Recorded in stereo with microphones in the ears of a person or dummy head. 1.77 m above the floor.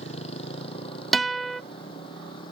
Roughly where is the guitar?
Centre.